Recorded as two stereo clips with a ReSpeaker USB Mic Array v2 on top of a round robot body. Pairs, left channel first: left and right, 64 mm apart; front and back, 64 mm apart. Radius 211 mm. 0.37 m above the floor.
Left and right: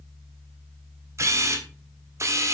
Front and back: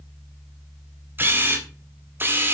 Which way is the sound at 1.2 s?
125° right.